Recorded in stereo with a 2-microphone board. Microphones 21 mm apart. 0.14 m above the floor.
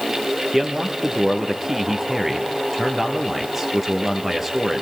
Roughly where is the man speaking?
Centre.